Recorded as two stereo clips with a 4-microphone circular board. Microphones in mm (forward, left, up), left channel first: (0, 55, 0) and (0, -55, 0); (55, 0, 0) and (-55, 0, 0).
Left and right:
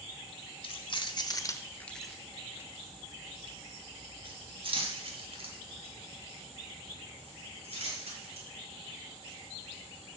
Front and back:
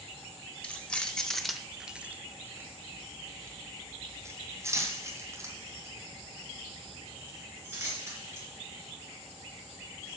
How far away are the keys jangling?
About 1.2 m.